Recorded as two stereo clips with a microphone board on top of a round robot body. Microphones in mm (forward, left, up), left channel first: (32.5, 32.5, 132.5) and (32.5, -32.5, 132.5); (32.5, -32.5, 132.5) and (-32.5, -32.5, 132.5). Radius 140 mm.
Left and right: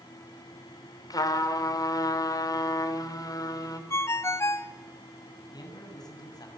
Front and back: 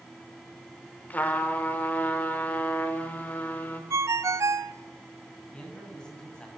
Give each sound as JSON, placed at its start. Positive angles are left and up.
{"t": 1.1, "sound": "a trumpet", "azimuth_deg": 65, "distance_m": 3.5}
{"t": 3.9, "sound": "a ringtone", "azimuth_deg": 140, "distance_m": 1.1}
{"t": 5.5, "sound": "a man speaking", "azimuth_deg": 80, "distance_m": 8.0}